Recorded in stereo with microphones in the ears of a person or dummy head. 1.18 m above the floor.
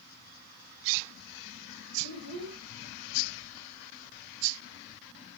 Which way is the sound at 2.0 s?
80° right.